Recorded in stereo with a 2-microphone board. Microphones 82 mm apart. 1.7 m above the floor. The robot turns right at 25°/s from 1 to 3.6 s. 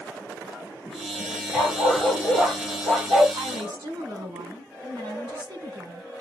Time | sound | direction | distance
1.5 | a dog barking | 160° left | 3.5 m
3.3 | a woman speaking | 55° right (ahead or behind) | 2.0 m